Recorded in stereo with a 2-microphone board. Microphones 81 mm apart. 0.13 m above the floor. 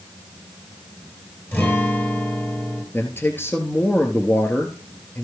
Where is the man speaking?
25° left (ahead or behind), 2.0 m.